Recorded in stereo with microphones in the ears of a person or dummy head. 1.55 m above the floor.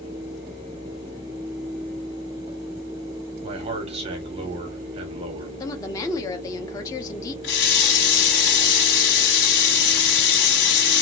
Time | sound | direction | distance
3.4 | a man speaking | 35° right (ahead or behind) | 1.0 m
5.6 | a woman speaking | 20° left (ahead or behind) | 0.8 m
7.4 | a running tap | 65° left (ahead or behind) | 1.8 m